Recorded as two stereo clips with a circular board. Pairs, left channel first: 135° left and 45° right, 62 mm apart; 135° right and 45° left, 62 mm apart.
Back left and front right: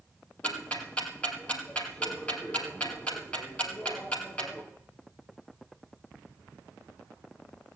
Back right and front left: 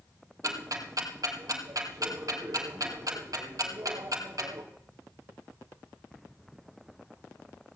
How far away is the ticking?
About 2 m.